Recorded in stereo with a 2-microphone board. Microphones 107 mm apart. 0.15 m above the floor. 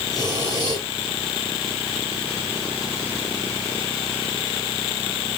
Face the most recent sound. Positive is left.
turn(degrees=35)  # may be behind; listen again after turning